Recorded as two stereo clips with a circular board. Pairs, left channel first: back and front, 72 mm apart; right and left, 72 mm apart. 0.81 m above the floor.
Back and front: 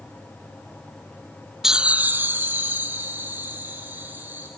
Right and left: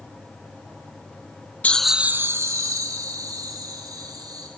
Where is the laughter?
75° right, 0.6 m; by 4.5 s 60° left, 3.5 m.